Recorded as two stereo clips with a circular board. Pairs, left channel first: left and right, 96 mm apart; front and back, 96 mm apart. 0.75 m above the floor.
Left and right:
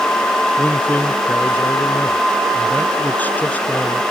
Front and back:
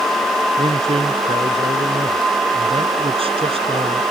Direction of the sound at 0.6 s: 165° left.